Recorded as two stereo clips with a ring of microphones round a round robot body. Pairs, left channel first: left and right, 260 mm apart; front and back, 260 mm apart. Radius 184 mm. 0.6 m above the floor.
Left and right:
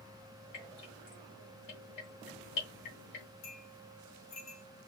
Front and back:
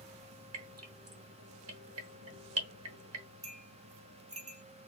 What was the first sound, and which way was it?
Dripping, 150° left.